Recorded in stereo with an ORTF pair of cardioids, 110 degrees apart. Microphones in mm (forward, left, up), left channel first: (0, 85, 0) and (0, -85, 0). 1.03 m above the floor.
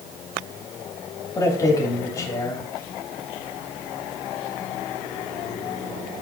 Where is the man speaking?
20° left, 2.5 m.